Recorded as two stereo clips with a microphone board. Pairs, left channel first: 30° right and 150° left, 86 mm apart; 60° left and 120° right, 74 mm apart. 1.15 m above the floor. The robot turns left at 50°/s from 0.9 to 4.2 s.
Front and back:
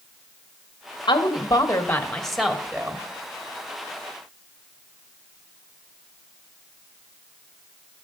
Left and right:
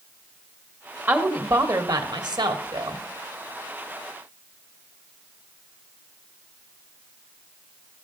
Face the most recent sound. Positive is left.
turn(degrees=145)